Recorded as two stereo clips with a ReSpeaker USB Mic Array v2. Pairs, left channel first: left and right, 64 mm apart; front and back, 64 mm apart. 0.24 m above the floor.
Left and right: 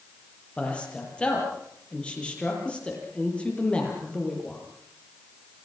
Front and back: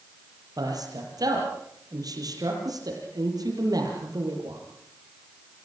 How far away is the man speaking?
About 7.5 m.